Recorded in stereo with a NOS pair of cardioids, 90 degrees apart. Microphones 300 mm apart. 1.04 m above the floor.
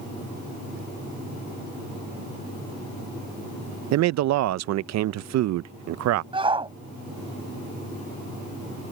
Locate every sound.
3.9 s a man speaking: 65° right
6.3 s a shout: 15° right